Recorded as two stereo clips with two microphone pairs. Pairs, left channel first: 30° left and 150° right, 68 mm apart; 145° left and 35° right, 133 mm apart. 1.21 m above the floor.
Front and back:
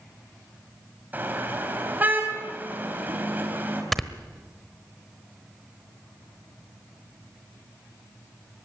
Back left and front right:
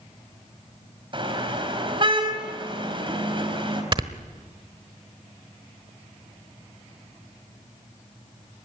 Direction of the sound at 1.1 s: 85° right.